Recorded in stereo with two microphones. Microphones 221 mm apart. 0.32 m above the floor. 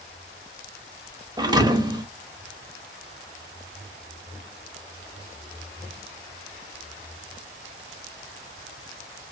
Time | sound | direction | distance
1.4 | a thud | 20° right (ahead or behind) | 0.5 m